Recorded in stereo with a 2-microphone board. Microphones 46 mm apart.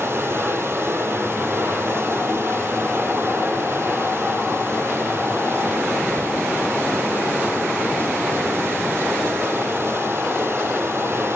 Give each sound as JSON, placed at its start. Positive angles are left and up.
{"t": 0.0, "sound": "running water", "side_deg": -55, "distance_m": 2.0}